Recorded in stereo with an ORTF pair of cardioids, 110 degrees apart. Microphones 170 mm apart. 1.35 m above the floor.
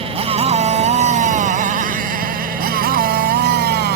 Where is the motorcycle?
35° right; by 4.0 s 80° right.